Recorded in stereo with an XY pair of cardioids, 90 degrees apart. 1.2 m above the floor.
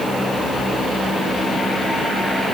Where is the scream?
No scream in this recording.